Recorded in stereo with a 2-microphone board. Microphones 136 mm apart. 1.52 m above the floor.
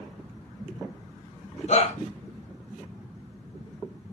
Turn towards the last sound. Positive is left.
turn(degrees=60)  # may be behind; listen again after turning